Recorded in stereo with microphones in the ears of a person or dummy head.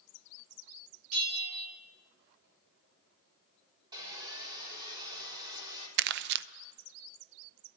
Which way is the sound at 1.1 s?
80° right.